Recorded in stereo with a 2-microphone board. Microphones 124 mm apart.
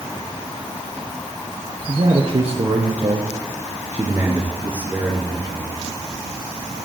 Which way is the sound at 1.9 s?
60° right (ahead or behind).